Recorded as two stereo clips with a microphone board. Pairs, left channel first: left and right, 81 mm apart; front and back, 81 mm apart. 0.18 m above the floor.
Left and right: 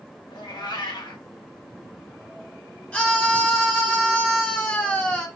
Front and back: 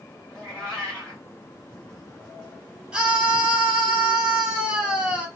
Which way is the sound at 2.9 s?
130° left.